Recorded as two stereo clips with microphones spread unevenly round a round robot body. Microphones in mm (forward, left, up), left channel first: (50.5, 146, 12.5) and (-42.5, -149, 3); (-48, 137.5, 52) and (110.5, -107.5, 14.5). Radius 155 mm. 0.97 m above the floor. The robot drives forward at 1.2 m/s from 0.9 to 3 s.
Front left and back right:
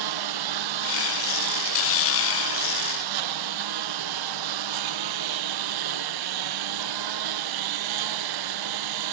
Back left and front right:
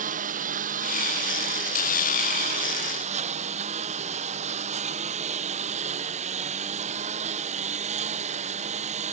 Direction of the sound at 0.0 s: 125° right.